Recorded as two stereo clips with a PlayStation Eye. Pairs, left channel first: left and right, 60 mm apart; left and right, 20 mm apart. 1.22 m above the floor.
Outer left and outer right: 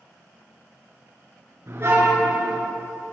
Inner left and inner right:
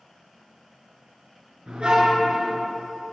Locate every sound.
1.7 s a car horn: 45° right (ahead or behind), 9 m